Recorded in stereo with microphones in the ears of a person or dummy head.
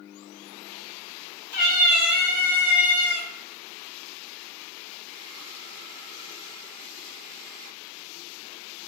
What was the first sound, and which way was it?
A cat meowing, 50° left (ahead or behind).